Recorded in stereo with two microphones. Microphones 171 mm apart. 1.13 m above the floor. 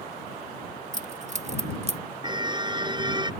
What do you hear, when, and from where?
0.9 s keys jangling: 45° right (ahead or behind); by 2.0 s 40° right (ahead or behind)
2.2 s a car horn: 25° right (ahead or behind)